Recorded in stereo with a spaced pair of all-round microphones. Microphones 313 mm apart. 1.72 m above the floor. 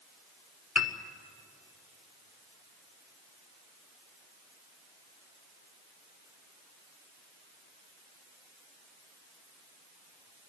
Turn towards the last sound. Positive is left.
turn(degrees=50)  # may be behind; listen again after turning